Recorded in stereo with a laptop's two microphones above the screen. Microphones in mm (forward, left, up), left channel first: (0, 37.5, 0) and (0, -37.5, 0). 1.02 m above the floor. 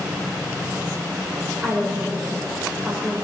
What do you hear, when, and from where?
1.6 s a woman speaking: 15° right (ahead or behind), 3.5 m